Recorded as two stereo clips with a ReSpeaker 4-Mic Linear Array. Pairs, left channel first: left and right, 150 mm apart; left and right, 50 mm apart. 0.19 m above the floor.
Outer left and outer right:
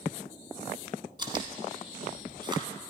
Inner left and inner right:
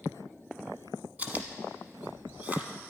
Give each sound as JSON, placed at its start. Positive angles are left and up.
{"t": 1.2, "sound": "chewing", "side_deg": -30, "distance_m": 1.0}